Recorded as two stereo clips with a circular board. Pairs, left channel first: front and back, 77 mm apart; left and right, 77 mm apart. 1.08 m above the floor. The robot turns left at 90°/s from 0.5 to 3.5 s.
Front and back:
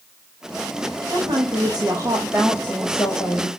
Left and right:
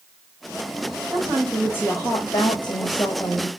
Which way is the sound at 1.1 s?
135° right.